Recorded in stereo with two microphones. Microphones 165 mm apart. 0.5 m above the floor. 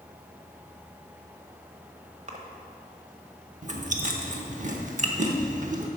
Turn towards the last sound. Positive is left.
turn(degrees=-50)  # may be behind; listen again after turning